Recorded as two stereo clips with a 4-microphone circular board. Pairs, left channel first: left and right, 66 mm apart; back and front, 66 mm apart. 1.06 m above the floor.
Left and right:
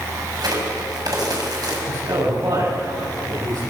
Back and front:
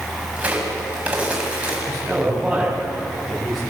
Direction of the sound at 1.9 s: 80° right.